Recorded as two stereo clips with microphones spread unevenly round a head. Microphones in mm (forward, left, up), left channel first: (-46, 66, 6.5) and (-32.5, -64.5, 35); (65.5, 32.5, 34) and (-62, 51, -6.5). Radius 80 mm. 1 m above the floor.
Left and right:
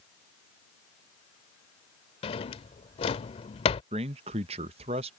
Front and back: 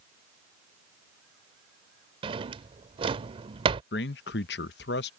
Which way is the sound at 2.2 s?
125° left.